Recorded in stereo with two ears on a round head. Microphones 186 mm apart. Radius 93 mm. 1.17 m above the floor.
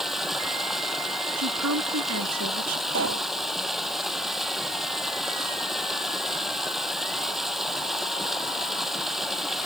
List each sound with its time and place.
0.0 s running water: centre (ahead or behind)
1.4 s a woman speaking: 80° right
2.9 s a pop: 65° right (ahead or behind)